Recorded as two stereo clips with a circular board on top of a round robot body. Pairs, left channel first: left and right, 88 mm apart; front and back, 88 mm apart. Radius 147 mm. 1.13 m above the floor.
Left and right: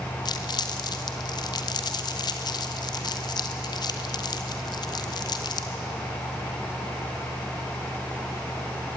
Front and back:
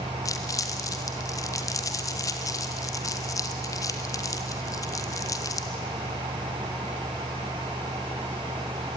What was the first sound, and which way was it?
Crumpling, 50° left.